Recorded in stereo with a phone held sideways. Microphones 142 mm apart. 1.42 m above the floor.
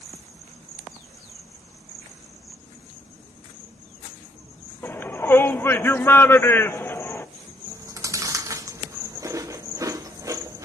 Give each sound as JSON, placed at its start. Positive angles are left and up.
{"t": 4.8, "sound": "a shout", "side_deg": 15, "distance_m": 0.6}
{"t": 7.7, "sound": "chewing", "side_deg": -25, "distance_m": 0.5}